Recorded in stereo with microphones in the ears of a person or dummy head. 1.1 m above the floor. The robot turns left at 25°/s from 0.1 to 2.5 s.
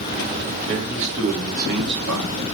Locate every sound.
0.7 s a man speaking: 25° right, 3.5 m; by 2.3 s 65° right, 3.5 m